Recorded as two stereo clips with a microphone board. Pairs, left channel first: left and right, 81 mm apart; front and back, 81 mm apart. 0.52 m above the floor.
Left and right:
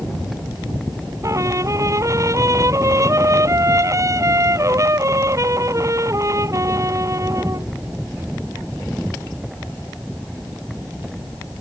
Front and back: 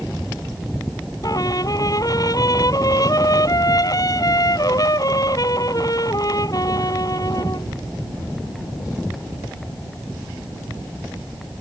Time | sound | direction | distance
1.2 | a trumpet | 40° right | ?